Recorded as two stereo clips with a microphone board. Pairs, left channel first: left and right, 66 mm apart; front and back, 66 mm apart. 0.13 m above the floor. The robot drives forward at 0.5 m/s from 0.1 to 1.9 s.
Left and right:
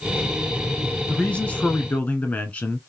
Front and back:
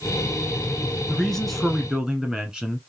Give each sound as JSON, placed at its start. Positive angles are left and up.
{"t": 1.1, "sound": "a man speaking", "azimuth_deg": 65, "distance_m": 1.1}